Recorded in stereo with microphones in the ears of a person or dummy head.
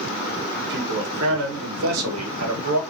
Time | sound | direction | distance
0.6 | a man speaking | 60° right (ahead or behind) | 1.8 m